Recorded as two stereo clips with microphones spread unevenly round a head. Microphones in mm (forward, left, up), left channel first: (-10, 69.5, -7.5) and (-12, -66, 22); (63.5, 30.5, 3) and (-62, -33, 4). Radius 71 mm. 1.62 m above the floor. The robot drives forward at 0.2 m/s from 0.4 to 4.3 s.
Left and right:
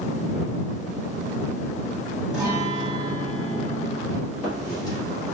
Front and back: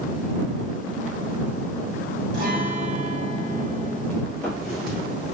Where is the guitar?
165° right, 1.3 m.